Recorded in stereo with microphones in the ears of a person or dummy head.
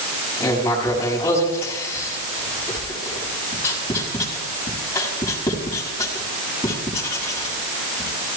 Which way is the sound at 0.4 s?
15° left (ahead or behind).